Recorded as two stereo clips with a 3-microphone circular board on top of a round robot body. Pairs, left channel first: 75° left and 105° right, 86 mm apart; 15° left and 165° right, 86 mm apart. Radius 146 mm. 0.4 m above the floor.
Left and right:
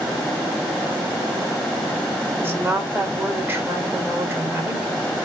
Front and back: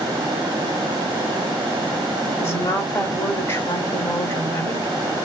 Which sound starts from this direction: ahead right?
A woman speaking, at 2.4 s.